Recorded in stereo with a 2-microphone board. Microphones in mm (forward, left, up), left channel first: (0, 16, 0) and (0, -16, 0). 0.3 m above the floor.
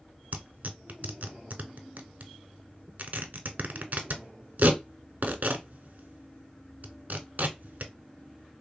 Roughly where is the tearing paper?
Right.